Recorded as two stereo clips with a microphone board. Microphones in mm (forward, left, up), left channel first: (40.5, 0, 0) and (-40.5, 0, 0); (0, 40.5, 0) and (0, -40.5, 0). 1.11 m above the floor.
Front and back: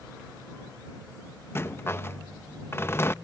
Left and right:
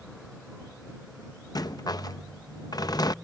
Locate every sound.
1.6 s a rattle: 55° left